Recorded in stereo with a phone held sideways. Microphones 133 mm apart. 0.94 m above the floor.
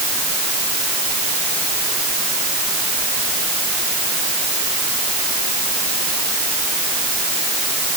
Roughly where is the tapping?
I don't hear tapping.